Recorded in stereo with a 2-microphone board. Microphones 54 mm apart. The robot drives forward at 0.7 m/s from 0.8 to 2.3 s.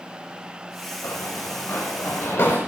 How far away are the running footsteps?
About 4 m.